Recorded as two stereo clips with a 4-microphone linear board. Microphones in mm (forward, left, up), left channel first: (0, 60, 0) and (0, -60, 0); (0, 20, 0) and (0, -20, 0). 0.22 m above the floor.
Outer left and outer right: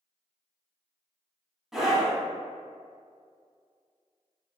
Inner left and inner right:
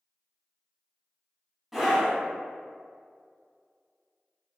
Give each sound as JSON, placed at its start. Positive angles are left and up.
{"t": 1.7, "sound": "a scream", "side_deg": -5, "distance_m": 1.5}